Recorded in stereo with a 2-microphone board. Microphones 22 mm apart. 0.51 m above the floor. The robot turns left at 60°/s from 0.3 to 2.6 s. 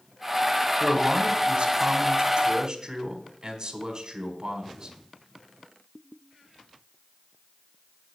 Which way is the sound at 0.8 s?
25° right.